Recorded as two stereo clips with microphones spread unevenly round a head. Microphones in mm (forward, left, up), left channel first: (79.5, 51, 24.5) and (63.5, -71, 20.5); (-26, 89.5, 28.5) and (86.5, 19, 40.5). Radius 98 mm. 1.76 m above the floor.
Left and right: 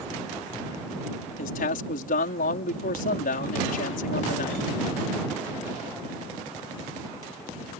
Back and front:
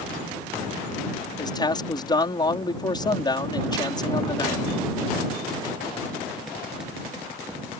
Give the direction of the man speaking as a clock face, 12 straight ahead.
9 o'clock.